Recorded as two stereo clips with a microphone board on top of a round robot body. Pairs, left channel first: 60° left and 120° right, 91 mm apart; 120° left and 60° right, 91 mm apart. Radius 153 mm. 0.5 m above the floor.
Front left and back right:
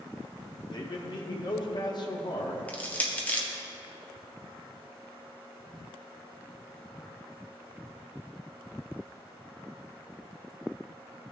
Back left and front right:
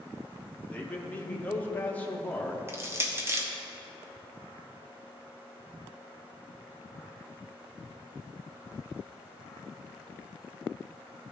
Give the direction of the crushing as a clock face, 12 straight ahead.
12 o'clock.